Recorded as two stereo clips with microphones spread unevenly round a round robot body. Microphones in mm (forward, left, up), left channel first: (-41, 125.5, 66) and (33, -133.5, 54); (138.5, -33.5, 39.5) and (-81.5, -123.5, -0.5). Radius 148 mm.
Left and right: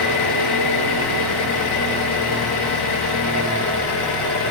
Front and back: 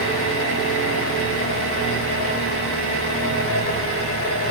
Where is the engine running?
75° left, 3.5 m.